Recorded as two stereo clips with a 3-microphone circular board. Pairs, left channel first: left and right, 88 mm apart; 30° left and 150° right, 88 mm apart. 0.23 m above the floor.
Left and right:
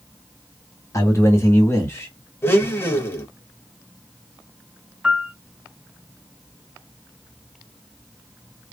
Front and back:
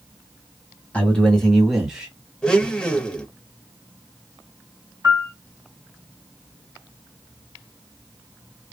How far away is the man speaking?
About 1.6 m.